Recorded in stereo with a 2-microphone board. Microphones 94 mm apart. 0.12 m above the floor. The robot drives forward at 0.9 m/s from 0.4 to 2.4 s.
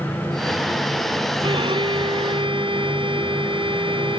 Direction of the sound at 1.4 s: 65° right (ahead or behind).